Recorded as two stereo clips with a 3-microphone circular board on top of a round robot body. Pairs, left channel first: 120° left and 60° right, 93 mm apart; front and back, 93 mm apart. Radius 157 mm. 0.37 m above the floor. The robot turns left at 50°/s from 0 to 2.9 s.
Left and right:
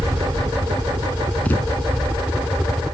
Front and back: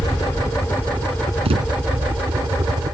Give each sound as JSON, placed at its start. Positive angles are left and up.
{"t": 0.0, "sound": "a helicopter", "azimuth_deg": -15}
{"t": 1.4, "sound": "a thud", "azimuth_deg": -165}